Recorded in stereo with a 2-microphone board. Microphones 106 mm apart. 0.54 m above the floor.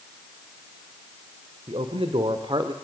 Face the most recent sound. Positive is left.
turn(degrees=-45)  # may be behind; listen again after turning